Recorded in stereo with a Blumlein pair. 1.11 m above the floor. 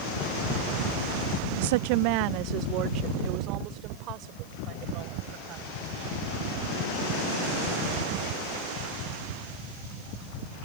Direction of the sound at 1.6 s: 55° right.